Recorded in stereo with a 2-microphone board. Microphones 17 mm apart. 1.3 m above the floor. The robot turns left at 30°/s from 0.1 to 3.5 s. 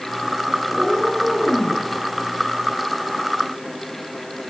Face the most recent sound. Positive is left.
turn(degrees=75)